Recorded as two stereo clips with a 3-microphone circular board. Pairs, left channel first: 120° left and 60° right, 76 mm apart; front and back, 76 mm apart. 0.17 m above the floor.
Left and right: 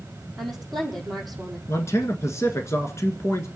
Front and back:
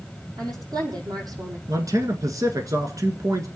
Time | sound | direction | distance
0.4 | a woman speaking | 150° right | 6 m
1.7 | a man speaking | 160° left | 1.8 m